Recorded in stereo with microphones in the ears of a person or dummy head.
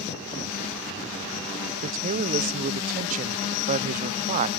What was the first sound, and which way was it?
A man speaking, 45° right (ahead or behind).